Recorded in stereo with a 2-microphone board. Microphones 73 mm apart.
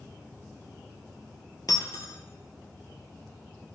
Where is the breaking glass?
60° left (ahead or behind), 1.5 m.